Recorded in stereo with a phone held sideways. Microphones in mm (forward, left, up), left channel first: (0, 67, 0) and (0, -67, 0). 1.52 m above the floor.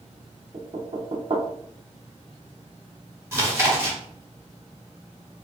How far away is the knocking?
About 0.7 m.